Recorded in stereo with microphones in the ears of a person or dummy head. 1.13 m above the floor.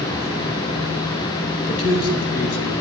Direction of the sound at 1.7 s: 70° left (ahead or behind).